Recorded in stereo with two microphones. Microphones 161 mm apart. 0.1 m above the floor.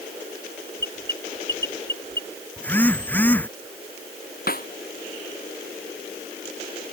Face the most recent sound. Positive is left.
turn(degrees=65)  # may be behind; listen again after turning